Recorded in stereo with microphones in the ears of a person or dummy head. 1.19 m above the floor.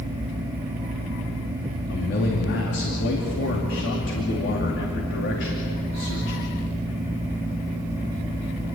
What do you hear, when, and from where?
1.9 s a man speaking: 60° left (ahead or behind), 2.5 m